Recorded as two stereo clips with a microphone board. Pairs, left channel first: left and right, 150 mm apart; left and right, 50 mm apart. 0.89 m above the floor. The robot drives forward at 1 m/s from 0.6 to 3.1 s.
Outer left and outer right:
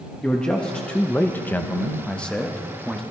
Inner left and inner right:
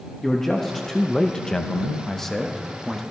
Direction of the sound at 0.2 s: 5° left (ahead or behind).